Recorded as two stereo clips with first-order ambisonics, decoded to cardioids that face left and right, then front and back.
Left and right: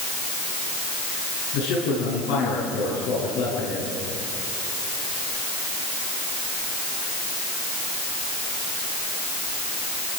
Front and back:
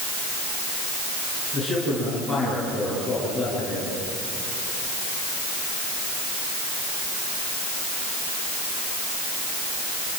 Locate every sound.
1.5 s a man speaking: 95° left, 9 m